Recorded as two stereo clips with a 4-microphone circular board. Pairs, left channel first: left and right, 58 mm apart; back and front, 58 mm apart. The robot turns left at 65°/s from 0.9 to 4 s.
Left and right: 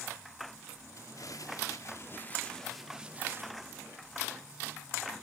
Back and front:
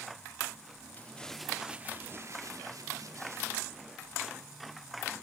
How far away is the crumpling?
About 1.3 m.